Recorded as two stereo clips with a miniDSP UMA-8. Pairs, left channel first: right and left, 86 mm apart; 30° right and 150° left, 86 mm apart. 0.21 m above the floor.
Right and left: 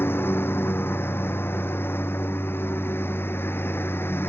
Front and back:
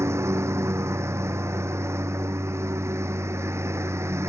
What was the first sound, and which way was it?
A lawn mower, 155° right.